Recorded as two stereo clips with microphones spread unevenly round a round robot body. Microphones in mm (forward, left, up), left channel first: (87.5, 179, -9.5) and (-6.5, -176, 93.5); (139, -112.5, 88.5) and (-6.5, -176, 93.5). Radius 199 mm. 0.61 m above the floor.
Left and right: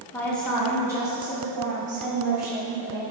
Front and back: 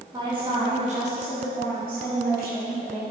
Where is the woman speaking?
140° left, 1.3 m; by 3.0 s 175° right, 2.5 m.